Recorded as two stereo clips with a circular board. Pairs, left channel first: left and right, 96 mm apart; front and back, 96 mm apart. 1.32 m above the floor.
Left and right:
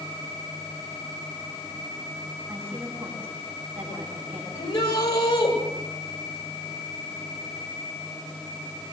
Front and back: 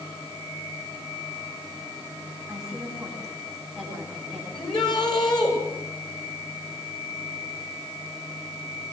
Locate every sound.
2.5 s a woman speaking: 95° right, 9 m
4.5 s a shout: 40° left, 8 m